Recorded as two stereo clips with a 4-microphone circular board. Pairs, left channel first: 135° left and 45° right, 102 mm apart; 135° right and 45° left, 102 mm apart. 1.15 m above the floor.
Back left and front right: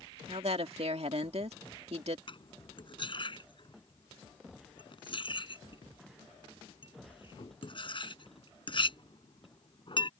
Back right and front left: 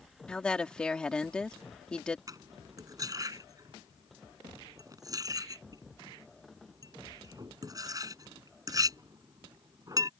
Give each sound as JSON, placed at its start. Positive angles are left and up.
{"t": 0.3, "sound": "a woman speaking", "azimuth_deg": -55}
{"t": 2.3, "sound": "cutlery clinking", "azimuth_deg": 100}